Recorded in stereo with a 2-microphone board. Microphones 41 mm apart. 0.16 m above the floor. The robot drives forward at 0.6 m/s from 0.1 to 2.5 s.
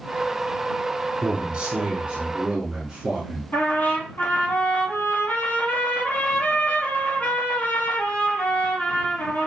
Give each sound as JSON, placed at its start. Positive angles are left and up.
{"t": 1.2, "sound": "a man speaking", "side_deg": -25, "distance_m": 1.1}
{"t": 3.5, "sound": "a trumpet", "side_deg": 50, "distance_m": 2.0}